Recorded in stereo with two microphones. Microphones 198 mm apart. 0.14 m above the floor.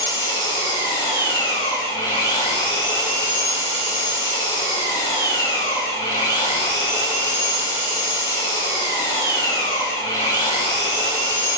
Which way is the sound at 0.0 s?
25° left (ahead or behind).